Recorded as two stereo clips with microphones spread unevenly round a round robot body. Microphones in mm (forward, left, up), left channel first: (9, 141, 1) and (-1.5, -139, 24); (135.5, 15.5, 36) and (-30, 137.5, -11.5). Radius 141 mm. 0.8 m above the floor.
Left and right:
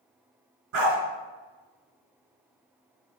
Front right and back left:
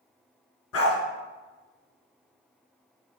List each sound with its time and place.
0.7 s a dog barking: 60° right, 2.5 m